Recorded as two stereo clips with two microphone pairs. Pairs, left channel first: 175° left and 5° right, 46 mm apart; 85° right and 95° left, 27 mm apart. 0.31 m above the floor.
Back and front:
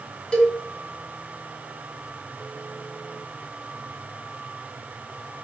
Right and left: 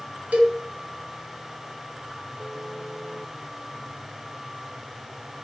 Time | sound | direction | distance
0.3 | a cowbell | 110° left | 2 m